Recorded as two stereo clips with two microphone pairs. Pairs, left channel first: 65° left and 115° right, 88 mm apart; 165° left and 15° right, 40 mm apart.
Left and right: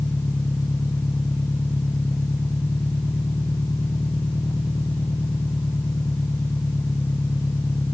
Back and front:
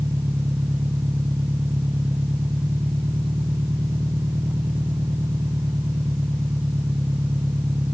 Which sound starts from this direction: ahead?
An engine running, at 0.0 s.